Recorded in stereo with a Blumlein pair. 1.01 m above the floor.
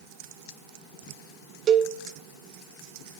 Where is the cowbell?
30° right, 0.6 m.